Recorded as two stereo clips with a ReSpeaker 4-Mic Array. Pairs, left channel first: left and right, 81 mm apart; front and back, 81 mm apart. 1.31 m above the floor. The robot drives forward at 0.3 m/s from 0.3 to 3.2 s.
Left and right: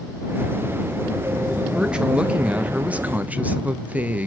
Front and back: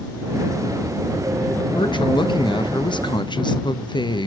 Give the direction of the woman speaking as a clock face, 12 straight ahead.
12 o'clock.